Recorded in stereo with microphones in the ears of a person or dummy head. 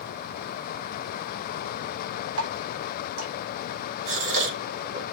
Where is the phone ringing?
I don't hear a phone ringing.